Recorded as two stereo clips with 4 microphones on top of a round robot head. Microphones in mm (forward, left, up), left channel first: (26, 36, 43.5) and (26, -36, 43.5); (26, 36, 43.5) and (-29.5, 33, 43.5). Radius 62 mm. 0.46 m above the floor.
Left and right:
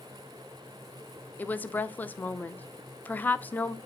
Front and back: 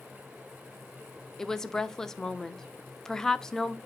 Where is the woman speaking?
70° left, 0.7 m.